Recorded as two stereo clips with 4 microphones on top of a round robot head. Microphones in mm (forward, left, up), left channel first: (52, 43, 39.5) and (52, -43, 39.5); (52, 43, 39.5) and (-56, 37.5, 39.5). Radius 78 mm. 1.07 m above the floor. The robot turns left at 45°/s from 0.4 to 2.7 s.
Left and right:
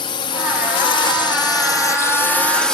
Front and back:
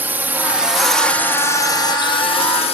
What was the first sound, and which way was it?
A drone, 110° left.